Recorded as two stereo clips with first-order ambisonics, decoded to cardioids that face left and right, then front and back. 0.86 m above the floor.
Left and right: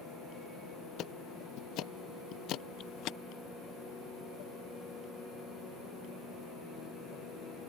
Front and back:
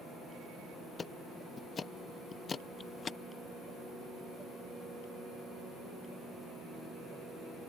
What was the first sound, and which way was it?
Ticking, 65° left.